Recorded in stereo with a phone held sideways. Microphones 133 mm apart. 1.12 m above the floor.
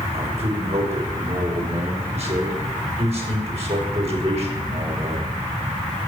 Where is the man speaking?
50° right (ahead or behind), 5 m.